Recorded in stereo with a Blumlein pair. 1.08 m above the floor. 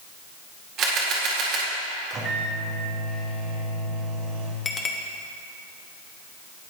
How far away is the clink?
About 1.0 m.